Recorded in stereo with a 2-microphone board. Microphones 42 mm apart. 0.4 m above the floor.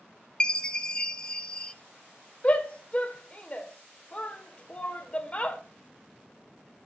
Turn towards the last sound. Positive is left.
turn(degrees=30)  # may be behind; listen again after turning